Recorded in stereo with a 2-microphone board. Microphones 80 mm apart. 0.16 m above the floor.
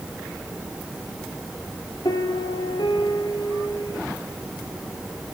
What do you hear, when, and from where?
2.0 s a piano: 65° left (ahead or behind), 1.8 m